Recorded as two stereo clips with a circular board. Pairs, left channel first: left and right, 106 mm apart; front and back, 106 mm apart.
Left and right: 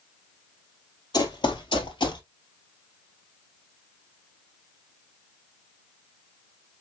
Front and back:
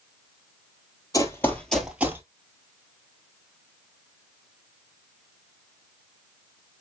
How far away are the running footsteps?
About 1.4 m.